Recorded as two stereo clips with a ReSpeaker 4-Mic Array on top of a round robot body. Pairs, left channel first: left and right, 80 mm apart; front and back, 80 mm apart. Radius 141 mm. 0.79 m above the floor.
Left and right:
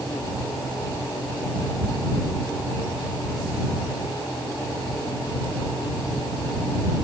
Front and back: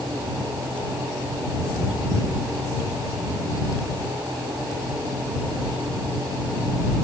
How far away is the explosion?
No explosion in this recording.